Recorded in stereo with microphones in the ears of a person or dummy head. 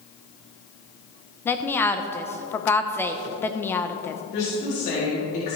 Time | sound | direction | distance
1.4 | a woman speaking | 10° left (ahead or behind) | 0.7 m
4.3 | a woman speaking | 45° left (ahead or behind) | 3.5 m